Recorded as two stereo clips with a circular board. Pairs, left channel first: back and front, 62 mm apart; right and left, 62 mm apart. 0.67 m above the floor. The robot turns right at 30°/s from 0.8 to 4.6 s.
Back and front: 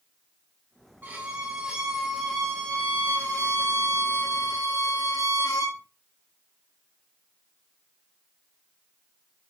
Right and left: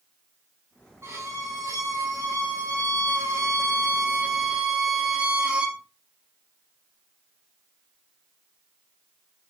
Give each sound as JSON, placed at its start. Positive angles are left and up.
{"t": 1.0, "sound": "a violin", "azimuth_deg": 55, "distance_m": 3.5}